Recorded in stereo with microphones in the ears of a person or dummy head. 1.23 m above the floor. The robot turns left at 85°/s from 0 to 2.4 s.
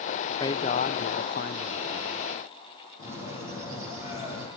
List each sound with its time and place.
0.4 s a man speaking: 155° left, 0.5 m; by 2.3 s 5° right, 0.5 m
3.0 s a bird: 45° left (ahead or behind), 8.5 m